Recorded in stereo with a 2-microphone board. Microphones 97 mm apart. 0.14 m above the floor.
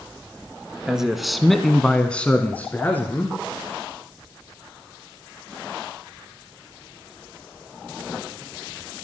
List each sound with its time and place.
0.9 s a man speaking: 5° right (ahead or behind), 1.3 m; by 3.4 s 20° left (ahead or behind), 1.8 m